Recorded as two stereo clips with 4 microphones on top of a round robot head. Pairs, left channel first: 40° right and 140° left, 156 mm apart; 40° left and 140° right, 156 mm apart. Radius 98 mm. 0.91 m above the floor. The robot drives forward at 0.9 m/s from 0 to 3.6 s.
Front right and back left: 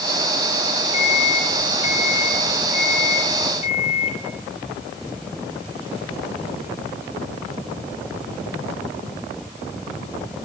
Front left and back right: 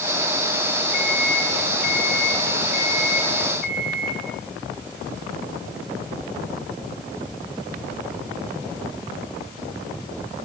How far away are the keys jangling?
I don't hear keys jangling.